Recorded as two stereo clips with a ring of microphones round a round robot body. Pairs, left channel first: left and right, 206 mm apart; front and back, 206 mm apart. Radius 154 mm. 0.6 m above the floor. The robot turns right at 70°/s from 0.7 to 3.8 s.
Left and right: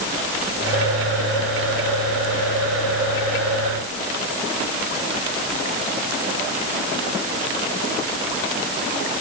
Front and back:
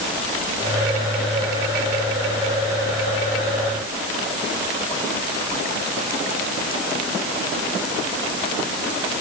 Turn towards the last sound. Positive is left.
No sound to turn to.